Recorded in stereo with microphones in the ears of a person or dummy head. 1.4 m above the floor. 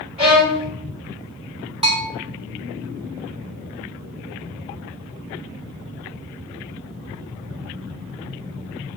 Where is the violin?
30° right (ahead or behind), 1.7 m.